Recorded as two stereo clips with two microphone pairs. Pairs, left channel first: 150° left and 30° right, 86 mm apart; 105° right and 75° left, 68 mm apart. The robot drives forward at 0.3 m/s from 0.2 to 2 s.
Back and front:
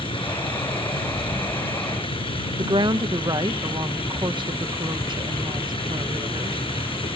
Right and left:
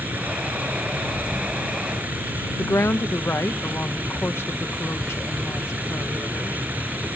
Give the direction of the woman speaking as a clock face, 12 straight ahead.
2 o'clock.